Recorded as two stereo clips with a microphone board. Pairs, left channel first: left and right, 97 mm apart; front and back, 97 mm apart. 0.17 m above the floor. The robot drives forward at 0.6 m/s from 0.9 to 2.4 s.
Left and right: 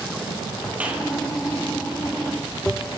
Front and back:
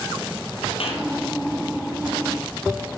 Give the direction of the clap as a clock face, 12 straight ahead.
12 o'clock.